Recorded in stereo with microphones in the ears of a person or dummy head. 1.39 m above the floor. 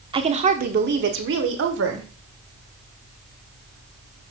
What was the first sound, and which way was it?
A woman speaking, 25° right (ahead or behind).